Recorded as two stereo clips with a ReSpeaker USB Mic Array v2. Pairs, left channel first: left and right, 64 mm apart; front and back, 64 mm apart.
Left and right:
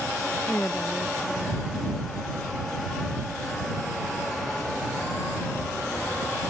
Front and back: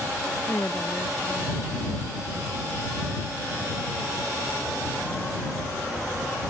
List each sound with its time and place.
0.5 s a woman speaking: 35° left